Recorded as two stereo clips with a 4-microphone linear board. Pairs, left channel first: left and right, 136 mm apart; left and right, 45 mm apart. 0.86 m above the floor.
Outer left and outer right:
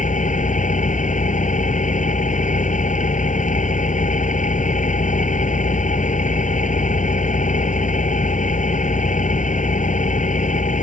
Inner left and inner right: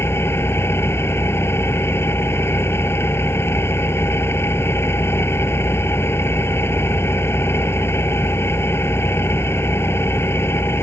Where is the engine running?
70° left (ahead or behind).